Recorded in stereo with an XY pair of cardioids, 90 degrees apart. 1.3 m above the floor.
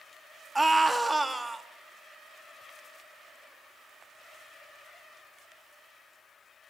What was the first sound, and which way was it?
A scream, 10° right.